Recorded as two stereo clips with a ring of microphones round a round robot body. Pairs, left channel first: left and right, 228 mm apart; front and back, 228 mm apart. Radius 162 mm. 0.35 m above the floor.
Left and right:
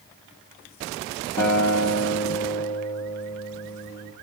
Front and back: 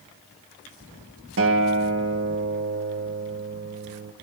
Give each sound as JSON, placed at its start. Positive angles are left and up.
{"t": 1.4, "sound": "a guitar", "azimuth_deg": 150, "distance_m": 1.2}